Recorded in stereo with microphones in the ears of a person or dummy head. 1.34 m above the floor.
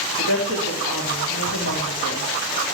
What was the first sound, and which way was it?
A woman speaking, 80° left.